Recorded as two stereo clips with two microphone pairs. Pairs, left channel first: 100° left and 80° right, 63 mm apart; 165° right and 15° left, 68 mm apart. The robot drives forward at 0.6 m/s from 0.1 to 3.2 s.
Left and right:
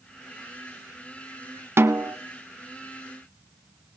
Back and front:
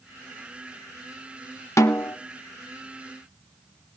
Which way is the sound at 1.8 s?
130° right.